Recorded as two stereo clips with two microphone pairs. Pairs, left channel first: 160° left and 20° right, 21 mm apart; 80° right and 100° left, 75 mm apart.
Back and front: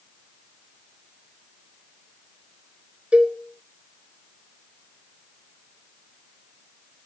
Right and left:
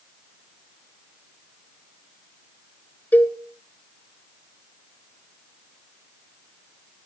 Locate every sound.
3.1 s a cowbell: 15° right, 1.1 m